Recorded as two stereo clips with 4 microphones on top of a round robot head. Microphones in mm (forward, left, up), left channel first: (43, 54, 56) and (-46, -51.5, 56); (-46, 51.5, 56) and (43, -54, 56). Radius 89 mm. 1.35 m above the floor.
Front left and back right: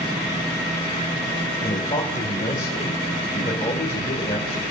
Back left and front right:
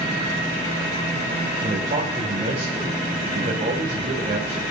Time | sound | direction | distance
1.6 | a man speaking | 5° right | 3.5 m